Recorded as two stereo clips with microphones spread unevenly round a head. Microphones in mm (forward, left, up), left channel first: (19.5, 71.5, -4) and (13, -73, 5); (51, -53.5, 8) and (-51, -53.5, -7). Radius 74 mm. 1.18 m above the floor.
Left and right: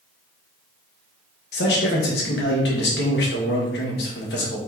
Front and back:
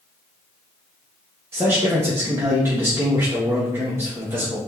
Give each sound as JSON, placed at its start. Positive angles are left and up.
{"t": 1.5, "sound": "a man speaking", "azimuth_deg": 105, "distance_m": 1.4}